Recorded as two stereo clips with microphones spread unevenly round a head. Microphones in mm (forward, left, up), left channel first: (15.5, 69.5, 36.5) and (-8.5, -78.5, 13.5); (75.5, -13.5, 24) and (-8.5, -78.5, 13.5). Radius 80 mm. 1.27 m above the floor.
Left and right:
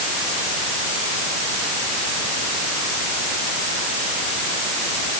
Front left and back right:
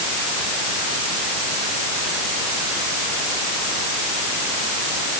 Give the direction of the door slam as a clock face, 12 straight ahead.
I don't hear a door slam.